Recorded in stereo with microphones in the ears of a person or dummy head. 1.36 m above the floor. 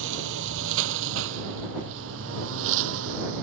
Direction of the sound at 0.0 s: 70° right (ahead or behind).